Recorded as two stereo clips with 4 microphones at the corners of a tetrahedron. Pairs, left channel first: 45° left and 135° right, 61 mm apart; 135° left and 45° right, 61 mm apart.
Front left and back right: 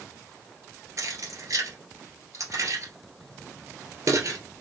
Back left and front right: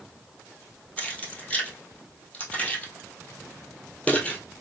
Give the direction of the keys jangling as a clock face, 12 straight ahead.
5 o'clock.